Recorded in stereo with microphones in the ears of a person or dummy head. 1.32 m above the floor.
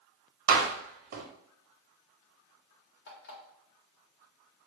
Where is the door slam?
55° right (ahead or behind), 1.1 m.